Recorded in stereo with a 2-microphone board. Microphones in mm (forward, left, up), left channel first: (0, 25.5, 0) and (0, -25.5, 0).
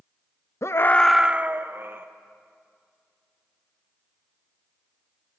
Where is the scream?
65° left (ahead or behind), 0.6 m; by 2.1 s 45° right (ahead or behind), 1.4 m.